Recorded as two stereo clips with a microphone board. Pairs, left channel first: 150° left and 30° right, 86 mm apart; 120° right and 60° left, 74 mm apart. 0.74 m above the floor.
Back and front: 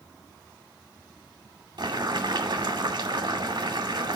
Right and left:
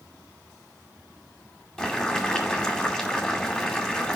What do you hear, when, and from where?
1.8 s boiling: 35° right, 2 m